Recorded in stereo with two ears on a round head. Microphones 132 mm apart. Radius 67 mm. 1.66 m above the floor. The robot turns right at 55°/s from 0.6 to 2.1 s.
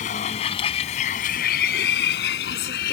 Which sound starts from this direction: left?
A vehicle, at 0.0 s.